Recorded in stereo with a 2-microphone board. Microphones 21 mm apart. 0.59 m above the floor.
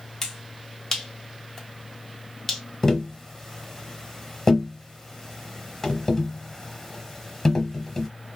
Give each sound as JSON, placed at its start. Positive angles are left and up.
{"t": 0.2, "sound": "a finger snap", "side_deg": 20, "distance_m": 0.8}
{"t": 2.8, "sound": "tapping", "side_deg": 15, "distance_m": 0.8}